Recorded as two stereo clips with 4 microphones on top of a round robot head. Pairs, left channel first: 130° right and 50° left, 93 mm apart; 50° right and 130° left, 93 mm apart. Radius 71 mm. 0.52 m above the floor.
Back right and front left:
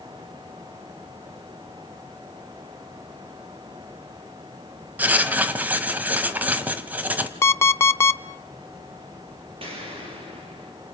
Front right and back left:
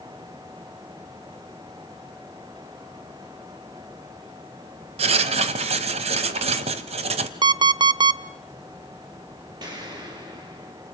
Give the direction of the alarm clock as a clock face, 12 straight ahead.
6 o'clock.